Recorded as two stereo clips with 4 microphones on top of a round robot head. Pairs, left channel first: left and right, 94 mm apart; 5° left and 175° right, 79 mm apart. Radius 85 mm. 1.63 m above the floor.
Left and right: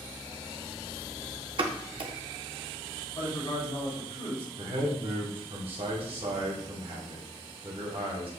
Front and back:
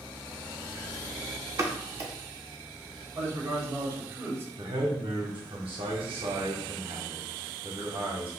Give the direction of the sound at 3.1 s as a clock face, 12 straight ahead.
8 o'clock.